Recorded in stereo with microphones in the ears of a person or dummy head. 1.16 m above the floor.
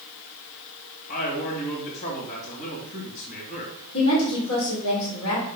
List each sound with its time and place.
1.1 s a man speaking: 50° left (ahead or behind), 2.5 m
3.9 s a woman speaking: 85° left, 3 m